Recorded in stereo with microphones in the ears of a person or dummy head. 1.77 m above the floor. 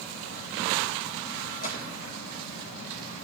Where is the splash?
40° left (ahead or behind), 2.5 m.